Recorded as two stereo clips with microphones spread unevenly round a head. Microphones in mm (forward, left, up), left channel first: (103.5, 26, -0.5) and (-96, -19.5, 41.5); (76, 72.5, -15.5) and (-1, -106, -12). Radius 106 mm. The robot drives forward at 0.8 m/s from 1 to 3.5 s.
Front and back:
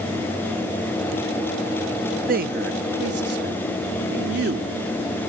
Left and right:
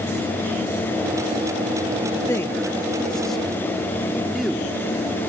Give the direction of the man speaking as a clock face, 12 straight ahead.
7 o'clock.